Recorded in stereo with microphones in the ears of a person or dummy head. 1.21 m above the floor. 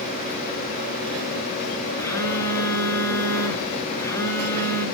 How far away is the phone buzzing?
About 4.5 m.